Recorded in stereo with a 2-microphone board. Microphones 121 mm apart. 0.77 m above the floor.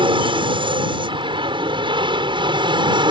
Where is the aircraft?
45° right (ahead or behind).